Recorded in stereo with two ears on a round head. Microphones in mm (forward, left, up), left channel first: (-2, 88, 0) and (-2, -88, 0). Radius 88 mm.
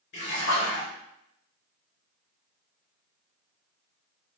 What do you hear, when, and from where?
0.1 s a splash: 60° left (ahead or behind), 2 m